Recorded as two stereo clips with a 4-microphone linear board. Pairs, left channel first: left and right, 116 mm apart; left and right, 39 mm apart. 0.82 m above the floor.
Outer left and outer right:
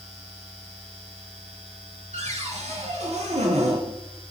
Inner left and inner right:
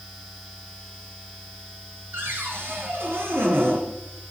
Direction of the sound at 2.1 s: 80° right.